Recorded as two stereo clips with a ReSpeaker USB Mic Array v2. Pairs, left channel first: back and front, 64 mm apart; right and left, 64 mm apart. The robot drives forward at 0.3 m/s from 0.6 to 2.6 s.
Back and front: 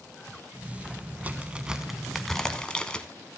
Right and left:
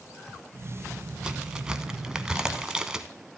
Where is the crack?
25° left, 0.6 m; by 3.1 s 140° left, 0.6 m.